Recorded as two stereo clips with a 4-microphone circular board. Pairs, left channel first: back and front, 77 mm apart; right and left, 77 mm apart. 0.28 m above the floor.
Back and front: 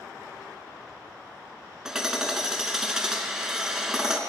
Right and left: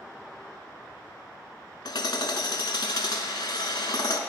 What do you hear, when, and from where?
1.9 s hammering: 80° right, 0.7 m